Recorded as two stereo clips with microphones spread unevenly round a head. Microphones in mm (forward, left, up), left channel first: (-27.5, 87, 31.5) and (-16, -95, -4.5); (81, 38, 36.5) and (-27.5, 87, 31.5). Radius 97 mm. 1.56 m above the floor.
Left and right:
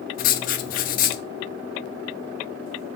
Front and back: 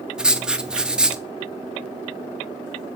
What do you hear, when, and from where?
0.2 s writing: 70° left, 0.7 m